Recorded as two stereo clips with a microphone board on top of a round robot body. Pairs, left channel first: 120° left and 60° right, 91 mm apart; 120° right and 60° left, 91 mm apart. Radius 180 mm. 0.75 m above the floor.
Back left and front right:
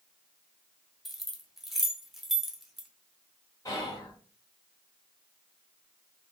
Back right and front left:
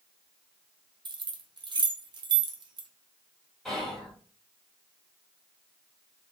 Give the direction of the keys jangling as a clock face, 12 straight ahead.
11 o'clock.